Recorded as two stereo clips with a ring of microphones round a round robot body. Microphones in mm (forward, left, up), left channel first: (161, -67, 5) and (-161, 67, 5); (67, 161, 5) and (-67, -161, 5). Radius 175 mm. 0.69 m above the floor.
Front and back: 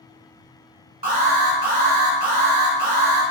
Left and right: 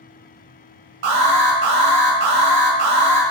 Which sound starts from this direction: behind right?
An alarm, at 1.0 s.